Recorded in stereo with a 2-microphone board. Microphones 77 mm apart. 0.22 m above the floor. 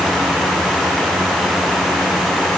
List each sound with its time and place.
Only background noise.